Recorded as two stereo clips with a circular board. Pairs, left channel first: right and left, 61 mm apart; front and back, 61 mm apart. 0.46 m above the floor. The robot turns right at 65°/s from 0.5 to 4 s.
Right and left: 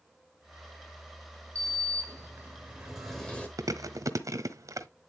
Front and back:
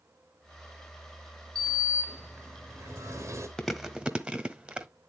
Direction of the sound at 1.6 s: 80° left.